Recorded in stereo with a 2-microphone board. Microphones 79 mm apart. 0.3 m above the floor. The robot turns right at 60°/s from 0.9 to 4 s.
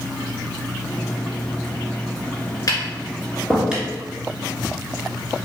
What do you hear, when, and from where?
2.7 s tapping: 50° left (ahead or behind), 1.7 m; by 3.9 s 20° right (ahead or behind), 1.7 m